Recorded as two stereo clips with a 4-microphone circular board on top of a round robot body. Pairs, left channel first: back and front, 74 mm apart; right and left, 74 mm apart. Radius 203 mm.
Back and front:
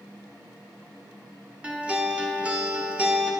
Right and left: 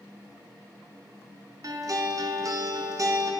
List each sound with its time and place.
1.6 s a guitar: 75° left, 1.7 m